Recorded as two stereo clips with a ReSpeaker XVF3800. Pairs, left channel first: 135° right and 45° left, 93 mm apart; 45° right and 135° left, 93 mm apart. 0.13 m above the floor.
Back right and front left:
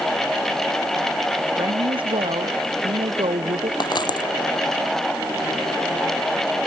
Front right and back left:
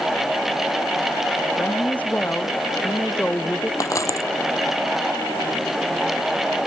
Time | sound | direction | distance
1.6 | a woman speaking | 25° left | ?
3.8 | a dropped coin | 100° right | ?